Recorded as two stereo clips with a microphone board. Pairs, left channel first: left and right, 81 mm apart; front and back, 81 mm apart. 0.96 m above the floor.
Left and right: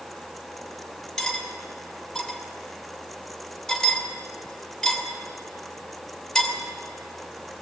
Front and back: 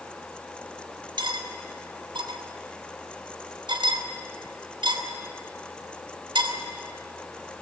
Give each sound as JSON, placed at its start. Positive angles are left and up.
{"t": 1.2, "sound": "cutlery clinking", "azimuth_deg": 175, "distance_m": 2.5}